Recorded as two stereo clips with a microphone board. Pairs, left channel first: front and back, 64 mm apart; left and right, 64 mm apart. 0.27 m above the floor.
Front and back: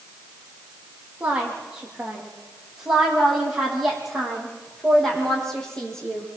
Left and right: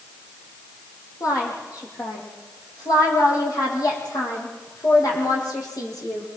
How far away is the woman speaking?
About 9 m.